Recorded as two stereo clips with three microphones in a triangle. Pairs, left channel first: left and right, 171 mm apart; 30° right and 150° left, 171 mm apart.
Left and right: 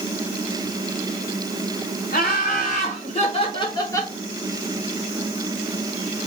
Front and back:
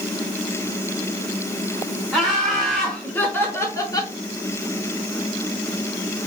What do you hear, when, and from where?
2.1 s laughter: 60° left, 2.0 m; by 4.1 s 20° left, 1.1 m